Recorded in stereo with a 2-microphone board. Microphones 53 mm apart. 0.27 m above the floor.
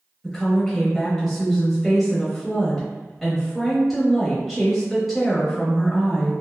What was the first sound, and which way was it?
A woman speaking, centre (ahead or behind).